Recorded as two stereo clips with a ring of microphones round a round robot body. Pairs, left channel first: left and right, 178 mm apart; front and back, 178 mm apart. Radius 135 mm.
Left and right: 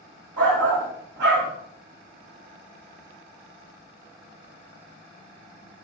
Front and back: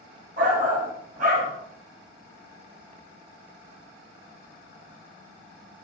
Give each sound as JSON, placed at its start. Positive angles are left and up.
{"t": 0.4, "sound": "a shout", "azimuth_deg": -125, "distance_m": 1.6}